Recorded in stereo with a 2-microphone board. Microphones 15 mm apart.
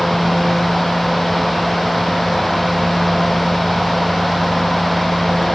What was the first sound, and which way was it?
Only background noise.